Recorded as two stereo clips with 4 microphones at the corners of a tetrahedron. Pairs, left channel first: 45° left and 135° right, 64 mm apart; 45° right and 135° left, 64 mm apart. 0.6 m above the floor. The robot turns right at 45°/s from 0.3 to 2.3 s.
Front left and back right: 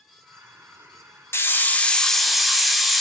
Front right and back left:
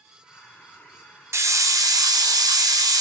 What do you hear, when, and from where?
1.3 s a hiss: 95° left, 0.7 m; by 3.0 s 135° left, 0.7 m